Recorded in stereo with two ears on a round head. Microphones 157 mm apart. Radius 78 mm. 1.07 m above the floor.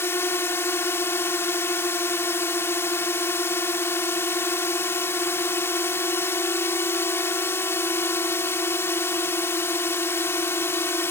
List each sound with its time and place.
0.0 s a drone: 15° left (ahead or behind)